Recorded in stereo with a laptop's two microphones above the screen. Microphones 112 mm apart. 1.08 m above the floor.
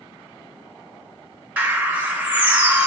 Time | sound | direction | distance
1.6 | a bird | 15° right (ahead or behind) | 0.8 m